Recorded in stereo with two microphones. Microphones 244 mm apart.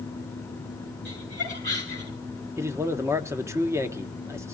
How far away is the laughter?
About 9 m.